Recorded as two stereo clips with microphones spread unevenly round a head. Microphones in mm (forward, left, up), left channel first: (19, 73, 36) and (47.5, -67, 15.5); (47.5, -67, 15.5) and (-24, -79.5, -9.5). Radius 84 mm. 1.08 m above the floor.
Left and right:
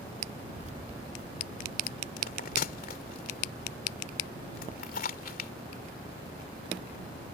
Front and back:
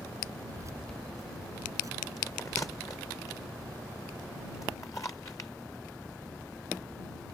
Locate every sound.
0.6 s keys jangling: 125° right; by 3.2 s 140° right
2.2 s a bell: 85° left